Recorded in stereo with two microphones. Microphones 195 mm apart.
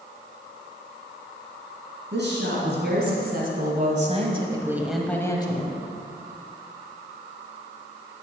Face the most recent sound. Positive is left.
turn(degrees=35)  # may be behind; listen again after turning